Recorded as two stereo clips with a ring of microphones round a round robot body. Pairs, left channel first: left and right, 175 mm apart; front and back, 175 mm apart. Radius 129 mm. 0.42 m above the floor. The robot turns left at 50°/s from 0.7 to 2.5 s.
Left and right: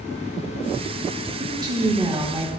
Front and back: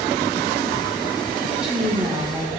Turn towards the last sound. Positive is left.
turn(degrees=-145)